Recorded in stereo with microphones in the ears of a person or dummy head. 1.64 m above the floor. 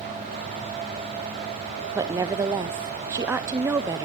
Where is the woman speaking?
15° right (ahead or behind), 0.5 m.